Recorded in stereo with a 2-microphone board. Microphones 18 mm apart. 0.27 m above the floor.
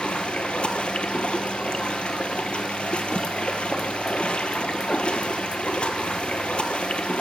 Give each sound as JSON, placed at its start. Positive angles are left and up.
{"t": 0.0, "sound": "running water", "side_deg": 85, "distance_m": 1.0}